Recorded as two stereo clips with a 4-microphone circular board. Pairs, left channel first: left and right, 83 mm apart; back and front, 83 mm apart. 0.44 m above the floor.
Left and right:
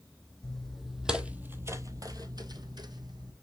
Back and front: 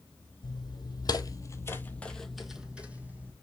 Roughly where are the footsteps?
Behind.